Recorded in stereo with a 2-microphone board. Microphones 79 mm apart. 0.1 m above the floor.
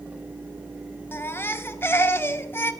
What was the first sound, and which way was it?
A baby crying, 30° left (ahead or behind).